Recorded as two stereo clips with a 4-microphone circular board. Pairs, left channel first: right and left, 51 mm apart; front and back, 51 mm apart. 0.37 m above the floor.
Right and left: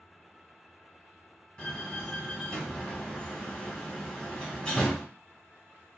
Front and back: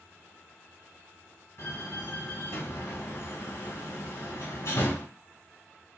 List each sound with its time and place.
1.6 s a door slam: 20° right, 1.7 m